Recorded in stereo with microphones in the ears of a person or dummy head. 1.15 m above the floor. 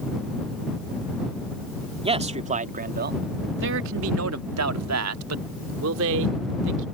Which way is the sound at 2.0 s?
25° right (ahead or behind).